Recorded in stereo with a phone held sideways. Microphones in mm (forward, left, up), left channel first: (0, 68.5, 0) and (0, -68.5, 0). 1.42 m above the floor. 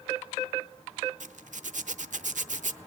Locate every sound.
1.2 s a zipper: 70° right (ahead or behind), 0.6 m